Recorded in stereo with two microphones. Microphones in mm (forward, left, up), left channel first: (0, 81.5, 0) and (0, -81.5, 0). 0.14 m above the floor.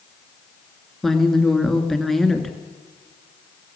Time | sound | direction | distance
1.0 | a woman speaking | centre (ahead or behind) | 2 m